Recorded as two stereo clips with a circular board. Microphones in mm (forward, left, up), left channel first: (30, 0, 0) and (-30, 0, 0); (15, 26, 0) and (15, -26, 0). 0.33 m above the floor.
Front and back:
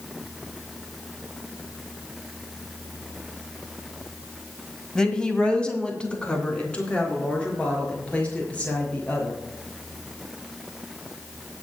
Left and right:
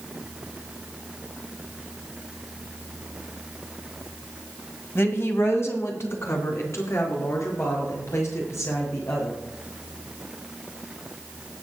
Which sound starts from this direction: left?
A woman speaking, at 5.0 s.